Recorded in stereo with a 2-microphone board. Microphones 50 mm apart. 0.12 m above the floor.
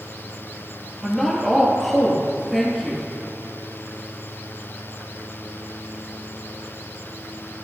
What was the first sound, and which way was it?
A woman speaking, centre (ahead or behind).